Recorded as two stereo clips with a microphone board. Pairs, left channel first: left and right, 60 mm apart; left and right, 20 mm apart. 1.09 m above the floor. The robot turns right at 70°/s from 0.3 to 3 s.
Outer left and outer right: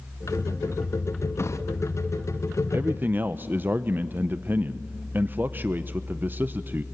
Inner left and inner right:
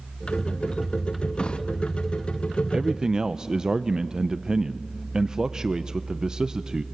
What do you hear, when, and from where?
1.4 s a drawer: 45° left (ahead or behind), 0.6 m; by 1.6 s 60° left (ahead or behind), 0.6 m
2.7 s a man speaking: 40° right (ahead or behind), 0.5 m; by 6.8 s 30° right (ahead or behind), 0.5 m